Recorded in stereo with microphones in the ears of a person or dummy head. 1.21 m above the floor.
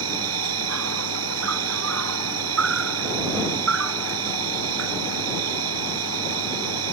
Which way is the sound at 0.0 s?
80° right.